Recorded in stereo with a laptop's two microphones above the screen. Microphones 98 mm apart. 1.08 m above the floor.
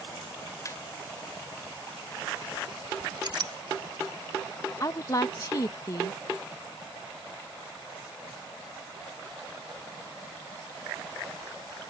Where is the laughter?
35° left (ahead or behind).